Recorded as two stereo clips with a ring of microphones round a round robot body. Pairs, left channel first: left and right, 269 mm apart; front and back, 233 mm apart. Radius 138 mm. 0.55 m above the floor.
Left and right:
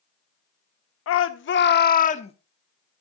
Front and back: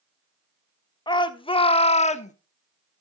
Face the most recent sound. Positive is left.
turn(degrees=35)